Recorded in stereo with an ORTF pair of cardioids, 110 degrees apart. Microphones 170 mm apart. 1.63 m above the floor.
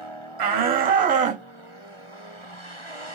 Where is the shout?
65° right, 1.5 m; by 1.4 s 45° right, 1.0 m.